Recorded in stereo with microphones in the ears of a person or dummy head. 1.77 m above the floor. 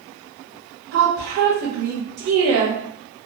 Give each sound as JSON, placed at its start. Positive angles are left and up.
{"t": 0.9, "sound": "a woman speaking", "side_deg": -70, "distance_m": 0.9}